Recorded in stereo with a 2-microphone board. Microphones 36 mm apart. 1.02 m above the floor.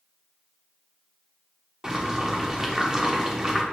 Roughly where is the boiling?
Centre.